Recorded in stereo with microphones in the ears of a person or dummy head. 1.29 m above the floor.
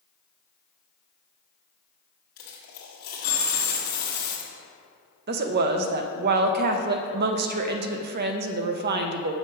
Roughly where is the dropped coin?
Left.